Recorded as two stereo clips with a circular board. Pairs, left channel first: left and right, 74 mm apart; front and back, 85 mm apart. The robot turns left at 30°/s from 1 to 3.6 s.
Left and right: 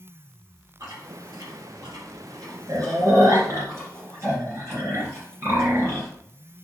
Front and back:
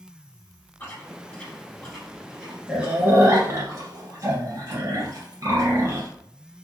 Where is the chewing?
60° right, 1.9 m; by 6.1 s 135° right, 1.9 m.